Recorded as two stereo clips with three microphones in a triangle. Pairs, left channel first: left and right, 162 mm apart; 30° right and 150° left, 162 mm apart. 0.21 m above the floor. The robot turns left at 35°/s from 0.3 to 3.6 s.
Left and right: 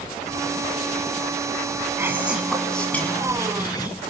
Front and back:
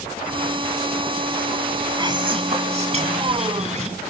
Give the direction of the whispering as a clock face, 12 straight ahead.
5 o'clock.